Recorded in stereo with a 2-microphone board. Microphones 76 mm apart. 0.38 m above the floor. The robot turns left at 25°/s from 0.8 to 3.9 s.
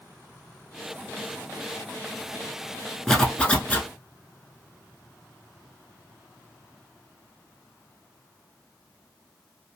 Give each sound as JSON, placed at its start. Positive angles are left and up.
{"t": 3.1, "sound": "a zipper", "side_deg": 5, "distance_m": 0.7}